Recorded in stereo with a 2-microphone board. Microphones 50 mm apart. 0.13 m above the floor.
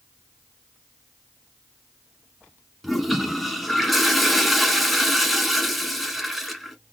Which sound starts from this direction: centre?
A toilet flushing, at 2.8 s.